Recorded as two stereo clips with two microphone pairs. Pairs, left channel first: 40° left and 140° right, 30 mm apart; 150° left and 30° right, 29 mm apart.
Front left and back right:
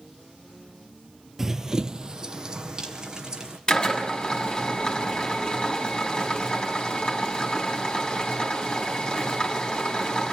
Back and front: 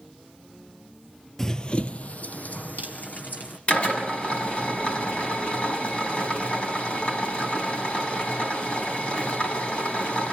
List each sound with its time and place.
1.4 s running footsteps: 170° left, 0.8 m; by 3.6 s 155° left, 3 m
3.7 s a drill: 105° left, 6 m